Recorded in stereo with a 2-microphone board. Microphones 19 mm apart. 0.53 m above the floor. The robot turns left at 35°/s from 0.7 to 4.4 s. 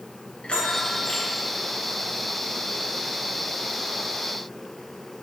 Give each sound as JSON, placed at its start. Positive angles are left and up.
{"t": 0.4, "sound": "a bell", "side_deg": 60, "distance_m": 3.0}